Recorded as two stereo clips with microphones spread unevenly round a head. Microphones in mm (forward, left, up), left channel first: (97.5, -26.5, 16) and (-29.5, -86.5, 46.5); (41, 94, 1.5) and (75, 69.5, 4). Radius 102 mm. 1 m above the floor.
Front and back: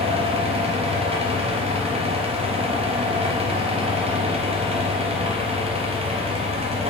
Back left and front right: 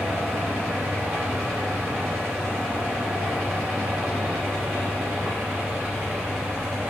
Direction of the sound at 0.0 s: 105° right.